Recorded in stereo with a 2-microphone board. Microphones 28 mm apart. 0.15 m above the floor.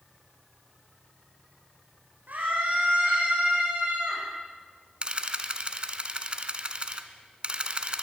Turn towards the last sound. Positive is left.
turn(degrees=-35)  # may be behind; listen again after turning